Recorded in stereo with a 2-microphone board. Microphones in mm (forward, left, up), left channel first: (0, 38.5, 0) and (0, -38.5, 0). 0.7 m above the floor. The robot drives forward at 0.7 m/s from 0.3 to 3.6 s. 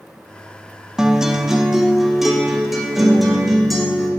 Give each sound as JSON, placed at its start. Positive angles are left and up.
{"t": 1.0, "sound": "a guitar", "side_deg": -10, "distance_m": 0.8}